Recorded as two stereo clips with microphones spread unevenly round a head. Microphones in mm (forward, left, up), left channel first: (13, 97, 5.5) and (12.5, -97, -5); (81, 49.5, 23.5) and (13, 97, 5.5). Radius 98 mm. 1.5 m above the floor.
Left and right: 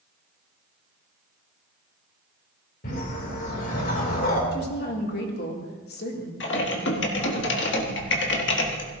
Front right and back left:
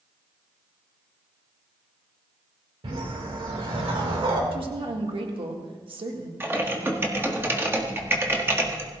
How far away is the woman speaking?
About 1.7 m.